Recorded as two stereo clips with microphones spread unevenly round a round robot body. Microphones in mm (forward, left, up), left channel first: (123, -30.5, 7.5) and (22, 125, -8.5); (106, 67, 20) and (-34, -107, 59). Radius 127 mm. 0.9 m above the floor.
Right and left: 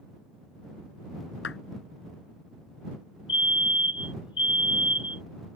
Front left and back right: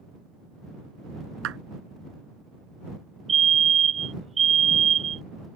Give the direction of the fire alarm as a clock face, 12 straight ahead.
3 o'clock.